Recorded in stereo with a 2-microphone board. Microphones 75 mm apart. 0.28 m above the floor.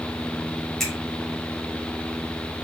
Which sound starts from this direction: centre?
A finger snap, at 0.8 s.